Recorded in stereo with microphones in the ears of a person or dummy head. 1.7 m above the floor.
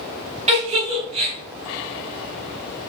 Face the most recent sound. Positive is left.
turn(degrees=-40)  # may be behind; listen again after turning